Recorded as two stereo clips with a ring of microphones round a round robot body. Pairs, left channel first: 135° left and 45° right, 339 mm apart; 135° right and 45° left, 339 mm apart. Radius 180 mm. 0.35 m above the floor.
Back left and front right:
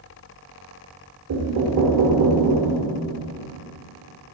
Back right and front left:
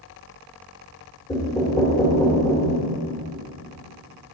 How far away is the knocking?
About 1.4 m.